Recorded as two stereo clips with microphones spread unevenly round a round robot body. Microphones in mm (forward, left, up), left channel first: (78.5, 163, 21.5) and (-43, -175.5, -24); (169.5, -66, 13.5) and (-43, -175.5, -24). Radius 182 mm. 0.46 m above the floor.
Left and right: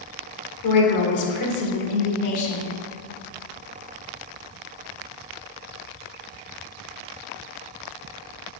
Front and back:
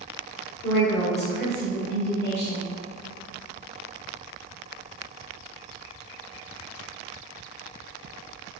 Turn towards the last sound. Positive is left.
turn(degrees=70)